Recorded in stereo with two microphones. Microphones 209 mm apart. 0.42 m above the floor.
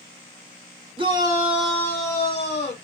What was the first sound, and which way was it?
A shout, 25° right (ahead or behind).